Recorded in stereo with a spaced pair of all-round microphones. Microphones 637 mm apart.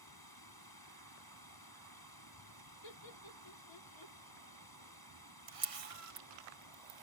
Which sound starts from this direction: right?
A camera shutter, at 5.5 s.